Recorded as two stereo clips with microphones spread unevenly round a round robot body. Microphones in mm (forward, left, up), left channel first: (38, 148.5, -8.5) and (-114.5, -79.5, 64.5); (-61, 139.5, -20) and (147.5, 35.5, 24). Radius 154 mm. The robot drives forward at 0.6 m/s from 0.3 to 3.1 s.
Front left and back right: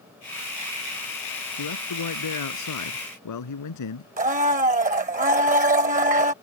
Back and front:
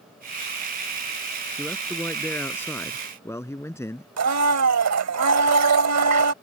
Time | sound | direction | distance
1.6 | a man speaking | 70° left | ?
4.2 | a blender | 60° right | ?